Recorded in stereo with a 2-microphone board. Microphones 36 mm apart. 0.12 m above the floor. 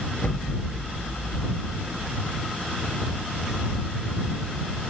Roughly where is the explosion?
Left.